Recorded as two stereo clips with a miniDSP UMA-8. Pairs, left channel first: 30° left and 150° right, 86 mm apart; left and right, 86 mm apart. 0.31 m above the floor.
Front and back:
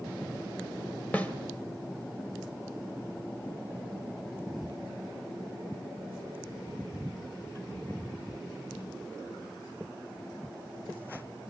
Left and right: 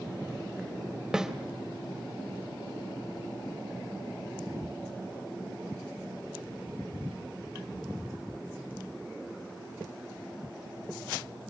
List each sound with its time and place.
1.1 s a snare drum: 20° right, 1.7 m